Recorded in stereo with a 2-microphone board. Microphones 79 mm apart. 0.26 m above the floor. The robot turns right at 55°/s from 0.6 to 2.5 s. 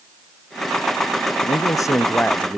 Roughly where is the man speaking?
Behind left.